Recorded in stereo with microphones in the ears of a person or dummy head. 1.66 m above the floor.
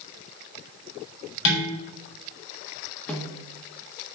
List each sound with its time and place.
1.4 s dishes clattering: 65° left (ahead or behind), 4 m
3.1 s a snare drum: 5° left (ahead or behind), 1.8 m